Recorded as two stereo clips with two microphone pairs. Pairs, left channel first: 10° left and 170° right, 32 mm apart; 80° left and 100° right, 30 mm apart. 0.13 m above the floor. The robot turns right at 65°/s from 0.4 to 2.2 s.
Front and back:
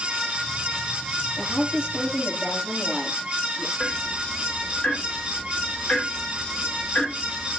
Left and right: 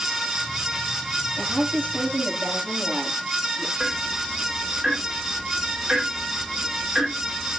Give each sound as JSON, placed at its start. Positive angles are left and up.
{"t": 1.4, "sound": "a woman speaking", "azimuth_deg": -135, "distance_m": 8.0}
{"t": 3.8, "sound": "ticking", "azimuth_deg": -40, "distance_m": 9.5}